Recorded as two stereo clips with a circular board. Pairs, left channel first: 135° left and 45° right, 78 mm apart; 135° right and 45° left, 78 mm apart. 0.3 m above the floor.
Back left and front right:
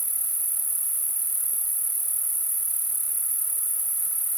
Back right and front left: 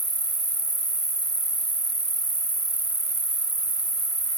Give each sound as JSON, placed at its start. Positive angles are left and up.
{"t": 0.0, "sound": "an insect", "azimuth_deg": 100}